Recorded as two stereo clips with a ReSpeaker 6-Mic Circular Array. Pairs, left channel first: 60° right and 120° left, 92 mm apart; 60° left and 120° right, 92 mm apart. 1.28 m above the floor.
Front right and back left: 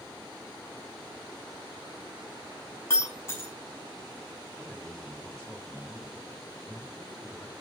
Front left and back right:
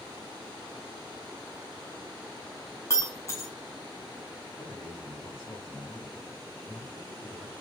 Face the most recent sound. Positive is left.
turn(degrees=25)